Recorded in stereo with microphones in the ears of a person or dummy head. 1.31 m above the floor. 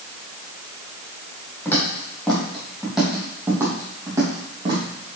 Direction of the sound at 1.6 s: 10° left (ahead or behind).